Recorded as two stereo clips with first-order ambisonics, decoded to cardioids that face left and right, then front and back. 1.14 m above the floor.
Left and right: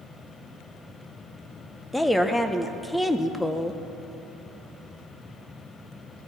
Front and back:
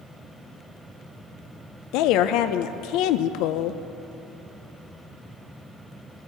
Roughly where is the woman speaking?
Ahead.